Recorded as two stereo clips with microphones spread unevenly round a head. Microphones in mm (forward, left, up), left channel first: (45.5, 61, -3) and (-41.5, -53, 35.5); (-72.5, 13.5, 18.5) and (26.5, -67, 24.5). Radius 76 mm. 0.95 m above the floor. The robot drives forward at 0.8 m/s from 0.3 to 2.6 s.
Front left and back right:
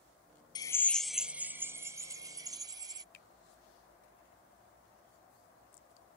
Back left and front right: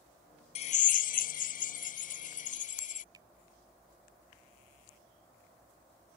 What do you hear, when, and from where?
0.6 s a drill: 105° left; by 3.0 s 165° left
3.1 s a finger snap: 30° left